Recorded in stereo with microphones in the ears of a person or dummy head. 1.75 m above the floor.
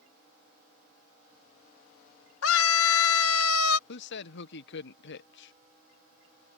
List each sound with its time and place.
2.4 s a scream: 80° left
3.9 s a man speaking: 70° left (ahead or behind)